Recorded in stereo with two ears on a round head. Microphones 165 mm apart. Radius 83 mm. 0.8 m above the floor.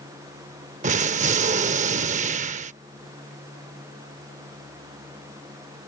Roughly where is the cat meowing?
I don't hear a cat meowing.